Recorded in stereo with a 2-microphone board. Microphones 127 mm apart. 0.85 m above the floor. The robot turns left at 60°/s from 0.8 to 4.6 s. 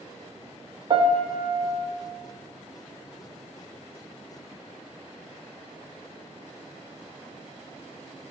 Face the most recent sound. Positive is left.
turn(degrees=80)